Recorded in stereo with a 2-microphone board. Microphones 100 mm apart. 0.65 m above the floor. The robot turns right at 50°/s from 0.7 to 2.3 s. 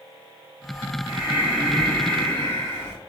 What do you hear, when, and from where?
1.1 s breathing: 35° right, 1.3 m; by 3.0 s 25° left, 1.3 m